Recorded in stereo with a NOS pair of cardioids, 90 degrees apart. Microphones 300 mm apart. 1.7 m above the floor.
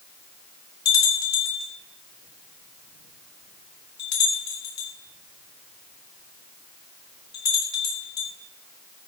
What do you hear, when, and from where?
0.8 s a bell: 60° left, 4 m